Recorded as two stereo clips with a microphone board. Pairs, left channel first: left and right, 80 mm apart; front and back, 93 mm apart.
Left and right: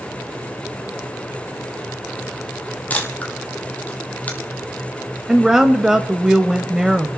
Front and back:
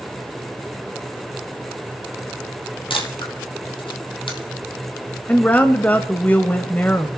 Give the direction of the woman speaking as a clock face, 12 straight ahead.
1 o'clock.